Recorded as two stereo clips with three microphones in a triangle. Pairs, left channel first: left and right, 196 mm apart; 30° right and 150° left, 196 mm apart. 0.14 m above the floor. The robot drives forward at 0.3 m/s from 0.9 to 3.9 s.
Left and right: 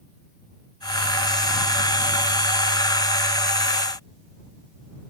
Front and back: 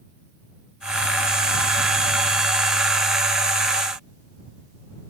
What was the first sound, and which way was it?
Only background noise.